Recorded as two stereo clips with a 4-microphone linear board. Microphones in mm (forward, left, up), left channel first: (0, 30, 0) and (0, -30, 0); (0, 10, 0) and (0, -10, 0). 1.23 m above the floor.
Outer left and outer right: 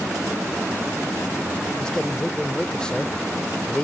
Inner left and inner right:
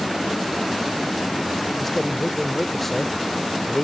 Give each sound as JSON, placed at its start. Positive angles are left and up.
{"t": 1.8, "sound": "a man speaking", "side_deg": 15}